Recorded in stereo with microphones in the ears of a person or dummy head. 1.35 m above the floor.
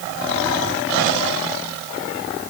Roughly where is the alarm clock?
No alarm clock in this recording.